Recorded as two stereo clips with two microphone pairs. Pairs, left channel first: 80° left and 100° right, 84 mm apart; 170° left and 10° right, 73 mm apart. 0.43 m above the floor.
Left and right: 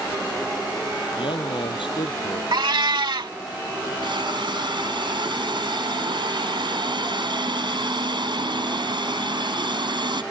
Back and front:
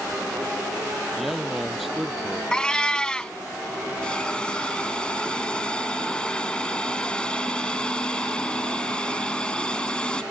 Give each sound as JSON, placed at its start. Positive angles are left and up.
{"t": 1.1, "sound": "a man speaking", "azimuth_deg": 80}
{"t": 2.5, "sound": "a cat meowing", "azimuth_deg": -115}
{"t": 4.0, "sound": "a hiss", "azimuth_deg": -110}